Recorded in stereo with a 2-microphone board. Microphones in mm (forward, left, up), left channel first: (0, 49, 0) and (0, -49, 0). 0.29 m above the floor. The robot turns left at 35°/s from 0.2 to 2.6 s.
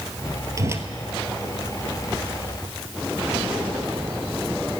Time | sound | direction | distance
0.6 | a whoosh | 35° right (ahead or behind) | 1.2 m